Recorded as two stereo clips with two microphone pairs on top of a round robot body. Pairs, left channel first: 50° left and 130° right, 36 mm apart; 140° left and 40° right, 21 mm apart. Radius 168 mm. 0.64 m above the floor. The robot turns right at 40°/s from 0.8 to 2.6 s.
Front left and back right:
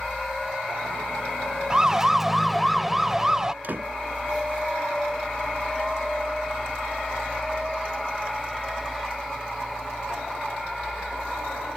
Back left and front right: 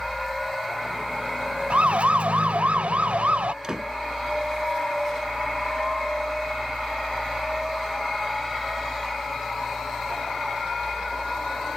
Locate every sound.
1.7 s a siren: 60° right
3.6 s a door slam: 95° right